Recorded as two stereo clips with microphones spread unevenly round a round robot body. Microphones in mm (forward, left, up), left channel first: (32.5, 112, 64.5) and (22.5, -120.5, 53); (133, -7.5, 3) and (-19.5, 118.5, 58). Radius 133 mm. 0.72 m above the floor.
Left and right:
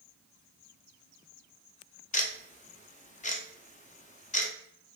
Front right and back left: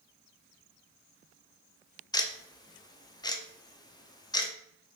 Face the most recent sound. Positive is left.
turn(degrees=25)